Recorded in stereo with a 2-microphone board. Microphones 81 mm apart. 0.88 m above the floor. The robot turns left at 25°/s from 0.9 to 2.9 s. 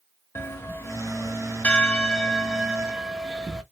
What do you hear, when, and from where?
0.3 s a bell: 45° left, 0.8 m; by 3.6 s 5° right, 0.8 m